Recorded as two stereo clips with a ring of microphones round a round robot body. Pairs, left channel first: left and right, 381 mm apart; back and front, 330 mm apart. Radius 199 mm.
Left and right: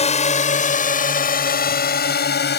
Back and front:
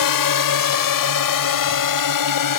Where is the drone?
165° left; by 2.6 s 155° left.